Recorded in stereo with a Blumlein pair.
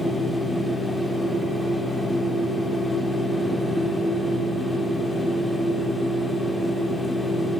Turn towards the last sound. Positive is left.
turn(degrees=0)